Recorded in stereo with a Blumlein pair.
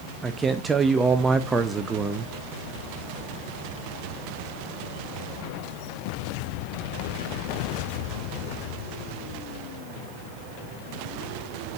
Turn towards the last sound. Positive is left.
turn(degrees=-15)